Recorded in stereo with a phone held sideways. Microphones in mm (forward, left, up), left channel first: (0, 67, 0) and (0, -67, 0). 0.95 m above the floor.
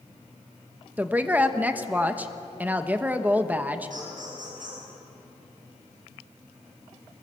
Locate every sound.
1.0 s a woman speaking: 10° right (ahead or behind), 1.1 m
3.9 s laughter: 80° right, 9 m